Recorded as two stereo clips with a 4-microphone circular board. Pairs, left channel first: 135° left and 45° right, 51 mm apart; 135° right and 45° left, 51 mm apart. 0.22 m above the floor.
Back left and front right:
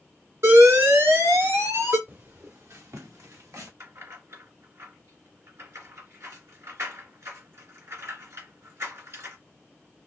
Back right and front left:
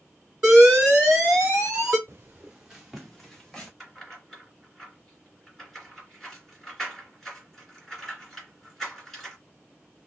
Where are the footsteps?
Straight ahead, 1.0 m; by 3.7 s 50° right, 2.5 m.